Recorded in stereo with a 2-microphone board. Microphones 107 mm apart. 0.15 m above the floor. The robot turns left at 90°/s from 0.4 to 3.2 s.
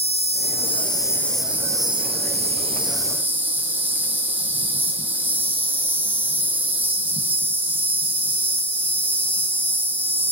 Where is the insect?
90° left, 0.9 m; by 10.3 s 165° right, 0.9 m.